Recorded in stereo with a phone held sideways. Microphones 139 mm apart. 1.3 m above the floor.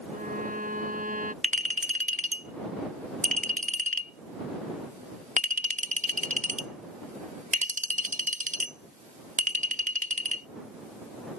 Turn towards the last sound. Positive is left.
turn(degrees=-60)  # may be behind; listen again after turning